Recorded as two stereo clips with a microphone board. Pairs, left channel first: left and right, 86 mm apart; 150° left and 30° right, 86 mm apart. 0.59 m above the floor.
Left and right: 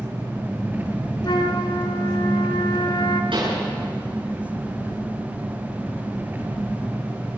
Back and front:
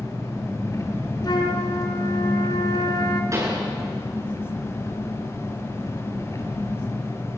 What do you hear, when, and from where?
0.0 s an engine running: 155° right, 3.5 m
1.2 s a flute: 115° left, 2.5 m
3.3 s a pop: 85° right, 10 m